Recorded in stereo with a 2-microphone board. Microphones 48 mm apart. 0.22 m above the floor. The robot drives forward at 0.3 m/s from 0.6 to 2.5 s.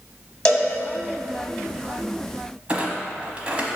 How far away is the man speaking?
I don't hear a man speaking.